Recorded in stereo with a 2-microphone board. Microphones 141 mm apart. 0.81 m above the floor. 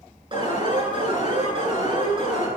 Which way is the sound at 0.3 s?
40° right (ahead or behind).